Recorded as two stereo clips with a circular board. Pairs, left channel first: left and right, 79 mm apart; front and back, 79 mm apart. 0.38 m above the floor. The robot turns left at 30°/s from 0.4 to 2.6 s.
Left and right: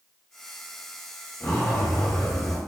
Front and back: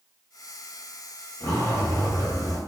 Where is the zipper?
40° left, 1.4 m; by 2.6 s 5° left, 1.4 m.